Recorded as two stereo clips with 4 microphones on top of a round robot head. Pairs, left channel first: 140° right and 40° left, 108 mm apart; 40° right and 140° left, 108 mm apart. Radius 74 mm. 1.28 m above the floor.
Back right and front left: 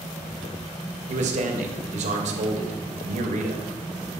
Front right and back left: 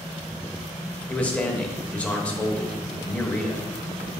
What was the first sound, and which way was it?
A man speaking, 40° left.